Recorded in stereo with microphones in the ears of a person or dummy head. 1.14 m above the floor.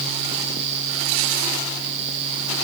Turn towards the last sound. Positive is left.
No sound to turn to.